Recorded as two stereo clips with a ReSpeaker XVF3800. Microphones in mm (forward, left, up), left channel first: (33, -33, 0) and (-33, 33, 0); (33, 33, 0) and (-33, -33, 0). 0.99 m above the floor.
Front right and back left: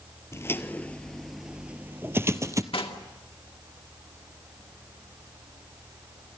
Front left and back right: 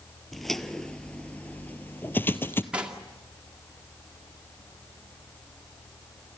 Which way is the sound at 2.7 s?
60° right.